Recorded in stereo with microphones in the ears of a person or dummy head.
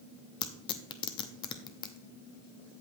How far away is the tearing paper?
About 0.8 m.